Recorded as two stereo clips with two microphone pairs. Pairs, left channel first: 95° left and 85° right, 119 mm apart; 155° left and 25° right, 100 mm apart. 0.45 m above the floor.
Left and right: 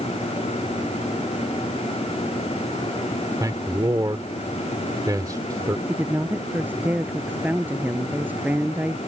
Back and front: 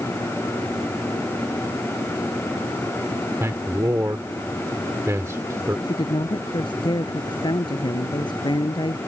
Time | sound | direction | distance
3.4 | a man speaking | 60° right | ?
5.9 | a woman speaking | 160° right | ?